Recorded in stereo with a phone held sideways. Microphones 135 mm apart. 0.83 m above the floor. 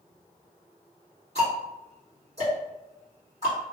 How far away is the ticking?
About 1.7 m.